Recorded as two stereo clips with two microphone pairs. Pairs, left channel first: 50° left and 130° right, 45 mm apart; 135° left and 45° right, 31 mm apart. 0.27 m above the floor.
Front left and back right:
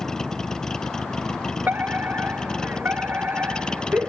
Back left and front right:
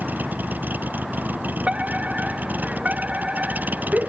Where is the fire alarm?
90° right.